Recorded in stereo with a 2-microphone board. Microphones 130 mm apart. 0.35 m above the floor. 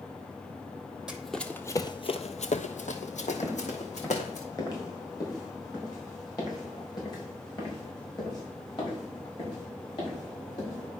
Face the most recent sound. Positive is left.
turn(degrees=35)  # may be behind; listen again after turning